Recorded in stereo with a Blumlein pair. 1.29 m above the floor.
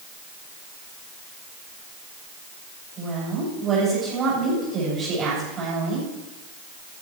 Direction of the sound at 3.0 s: 25° right.